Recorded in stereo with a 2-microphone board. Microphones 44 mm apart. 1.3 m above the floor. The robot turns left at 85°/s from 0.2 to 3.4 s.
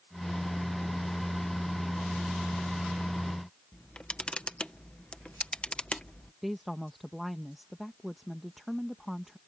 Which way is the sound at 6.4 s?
Centre (ahead or behind).